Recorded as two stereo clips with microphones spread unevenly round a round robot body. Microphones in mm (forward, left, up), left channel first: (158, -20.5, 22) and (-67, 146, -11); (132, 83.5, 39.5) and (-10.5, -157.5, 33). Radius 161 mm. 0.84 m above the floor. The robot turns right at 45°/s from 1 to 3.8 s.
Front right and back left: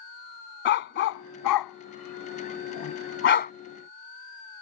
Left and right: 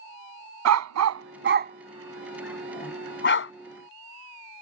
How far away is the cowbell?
I don't hear a cowbell.